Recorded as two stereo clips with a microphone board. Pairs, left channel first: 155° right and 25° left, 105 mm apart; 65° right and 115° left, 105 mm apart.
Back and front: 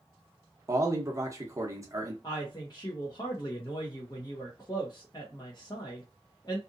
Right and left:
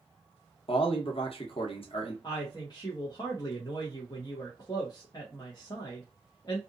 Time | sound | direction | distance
0.7 | a man speaking | 40° right | 0.8 m
2.2 | a woman speaking | 110° right | 1.0 m